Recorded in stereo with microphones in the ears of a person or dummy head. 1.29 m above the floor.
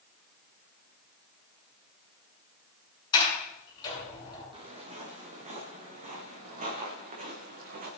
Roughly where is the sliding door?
Left.